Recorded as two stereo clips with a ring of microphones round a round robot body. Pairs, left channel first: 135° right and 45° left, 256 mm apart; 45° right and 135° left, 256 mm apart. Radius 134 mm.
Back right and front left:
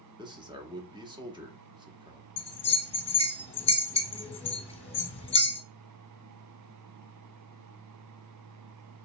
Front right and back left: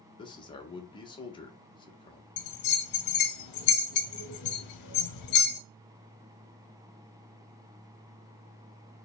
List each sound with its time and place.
0.2 s a man speaking: straight ahead, 0.9 m
2.4 s a bell: 65° right, 1.0 m